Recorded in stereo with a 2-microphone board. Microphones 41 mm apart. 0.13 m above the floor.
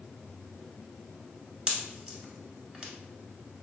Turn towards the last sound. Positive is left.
turn(degrees=-20)  # may be behind; listen again after turning